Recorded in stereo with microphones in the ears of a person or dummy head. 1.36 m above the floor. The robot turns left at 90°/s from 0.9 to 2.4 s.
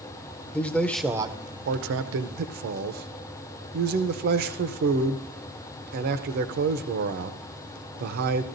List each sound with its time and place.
0.5 s a man speaking: 10° left, 0.6 m; by 8.4 s 125° right, 0.6 m